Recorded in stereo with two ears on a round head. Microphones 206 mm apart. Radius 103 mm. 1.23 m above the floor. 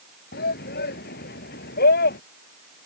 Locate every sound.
0.3 s a shout: 45° left (ahead or behind)